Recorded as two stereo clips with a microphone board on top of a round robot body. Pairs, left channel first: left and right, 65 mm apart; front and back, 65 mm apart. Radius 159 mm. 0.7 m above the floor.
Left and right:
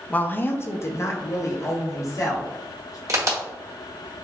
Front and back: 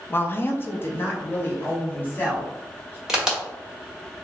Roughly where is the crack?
Right.